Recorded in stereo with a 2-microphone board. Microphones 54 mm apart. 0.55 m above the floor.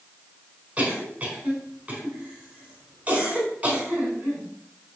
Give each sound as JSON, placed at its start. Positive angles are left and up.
{"t": 0.8, "sound": "a cough", "side_deg": -25, "distance_m": 4.5}